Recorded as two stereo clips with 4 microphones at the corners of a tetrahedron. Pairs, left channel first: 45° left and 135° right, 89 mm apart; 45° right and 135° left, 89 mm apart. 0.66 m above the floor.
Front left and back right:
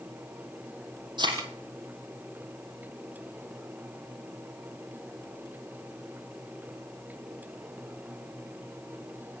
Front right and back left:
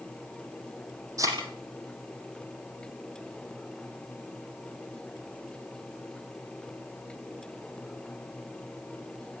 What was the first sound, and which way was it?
A thud, 170° right.